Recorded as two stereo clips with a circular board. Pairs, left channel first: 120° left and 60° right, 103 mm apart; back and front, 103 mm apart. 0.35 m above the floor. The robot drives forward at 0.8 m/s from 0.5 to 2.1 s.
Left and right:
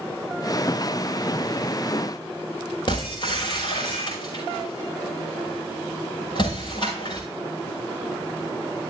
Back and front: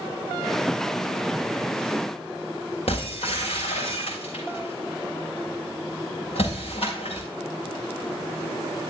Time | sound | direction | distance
2.9 | breaking glass | 160° left | 7 m